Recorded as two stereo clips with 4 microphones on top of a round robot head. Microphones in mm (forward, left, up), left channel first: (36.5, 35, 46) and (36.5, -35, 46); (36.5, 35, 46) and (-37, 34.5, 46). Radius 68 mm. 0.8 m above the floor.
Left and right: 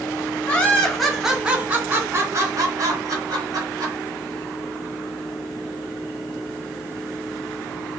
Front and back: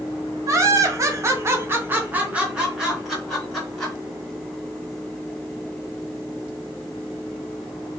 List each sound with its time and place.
0.5 s laughter: 160° left, 0.9 m; by 4.0 s 85° right, 1.4 m